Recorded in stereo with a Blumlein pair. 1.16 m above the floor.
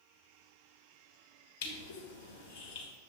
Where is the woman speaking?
No woman speaking in this recording.